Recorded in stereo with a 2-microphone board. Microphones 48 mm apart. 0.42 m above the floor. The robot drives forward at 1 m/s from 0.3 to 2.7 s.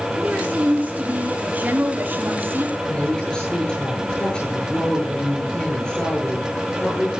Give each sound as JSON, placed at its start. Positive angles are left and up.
{"t": 0.2, "sound": "a woman speaking", "side_deg": -25, "distance_m": 4.0}
{"t": 2.8, "sound": "a woman speaking", "side_deg": 20, "distance_m": 9.5}